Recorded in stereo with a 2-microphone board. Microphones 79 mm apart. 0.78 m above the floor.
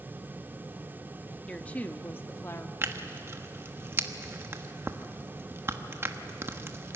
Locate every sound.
1.5 s a woman speaking: 15° left (ahead or behind), 1.0 m; by 2.7 s 35° left (ahead or behind), 1.4 m
2.8 s tearing paper: 30° right (ahead or behind), 1.2 m